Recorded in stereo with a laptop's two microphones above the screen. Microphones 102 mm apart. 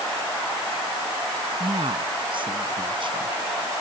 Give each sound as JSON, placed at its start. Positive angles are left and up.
{"t": 1.6, "sound": "a woman speaking", "side_deg": -55}